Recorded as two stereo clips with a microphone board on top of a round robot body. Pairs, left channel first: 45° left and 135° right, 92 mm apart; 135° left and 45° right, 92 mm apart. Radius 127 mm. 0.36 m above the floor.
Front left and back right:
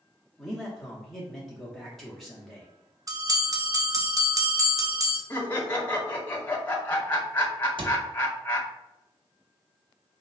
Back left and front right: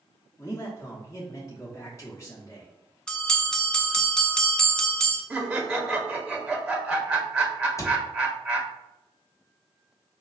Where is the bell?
150° right, 0.9 m.